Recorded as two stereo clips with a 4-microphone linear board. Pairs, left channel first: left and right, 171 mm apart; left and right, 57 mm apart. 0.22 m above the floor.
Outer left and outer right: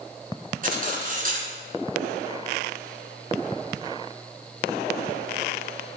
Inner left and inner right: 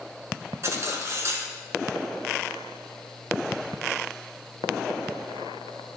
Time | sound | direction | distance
0.6 | cutlery clinking | 50° right (ahead or behind) | 1.7 m